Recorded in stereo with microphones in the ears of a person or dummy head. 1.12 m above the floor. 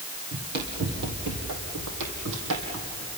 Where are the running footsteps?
50° right (ahead or behind), 2 m; by 3.1 s 70° right (ahead or behind), 3.5 m.